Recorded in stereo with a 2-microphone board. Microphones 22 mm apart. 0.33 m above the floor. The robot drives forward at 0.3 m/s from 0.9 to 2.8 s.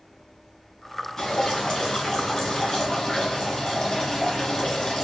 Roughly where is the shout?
I don't hear a shout.